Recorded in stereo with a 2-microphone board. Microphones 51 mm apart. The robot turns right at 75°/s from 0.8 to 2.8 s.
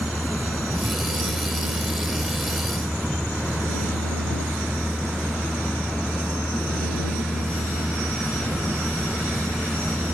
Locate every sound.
0.0 s a vehicle: 170° right; by 10.1 s 20° right